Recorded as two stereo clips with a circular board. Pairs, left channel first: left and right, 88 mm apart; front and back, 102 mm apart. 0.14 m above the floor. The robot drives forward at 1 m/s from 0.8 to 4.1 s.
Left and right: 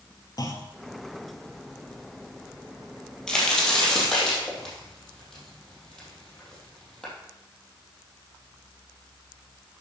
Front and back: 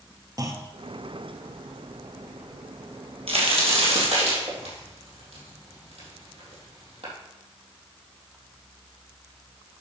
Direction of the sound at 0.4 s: 130° left.